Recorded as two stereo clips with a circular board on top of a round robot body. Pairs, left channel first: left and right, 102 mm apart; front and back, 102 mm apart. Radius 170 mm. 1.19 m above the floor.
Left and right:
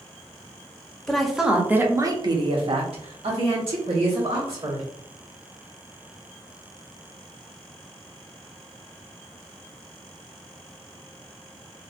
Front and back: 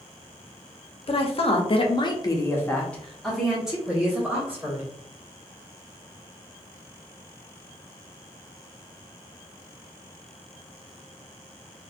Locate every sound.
1.1 s a woman speaking: 5° left, 0.8 m; by 4.9 s 110° right, 1.6 m